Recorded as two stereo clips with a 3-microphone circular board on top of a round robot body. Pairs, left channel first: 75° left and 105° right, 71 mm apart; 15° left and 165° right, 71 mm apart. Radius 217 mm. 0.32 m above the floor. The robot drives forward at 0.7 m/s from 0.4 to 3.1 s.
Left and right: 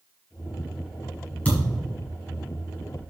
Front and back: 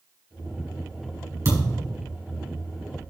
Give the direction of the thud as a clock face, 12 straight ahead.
7 o'clock.